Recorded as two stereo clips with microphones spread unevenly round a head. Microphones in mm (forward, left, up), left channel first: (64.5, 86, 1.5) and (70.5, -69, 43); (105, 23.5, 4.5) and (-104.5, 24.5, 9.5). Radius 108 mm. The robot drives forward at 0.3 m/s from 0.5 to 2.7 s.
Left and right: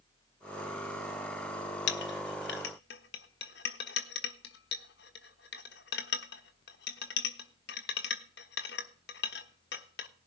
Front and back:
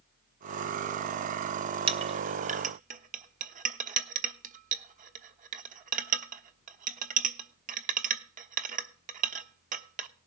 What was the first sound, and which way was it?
A clink, 125° left.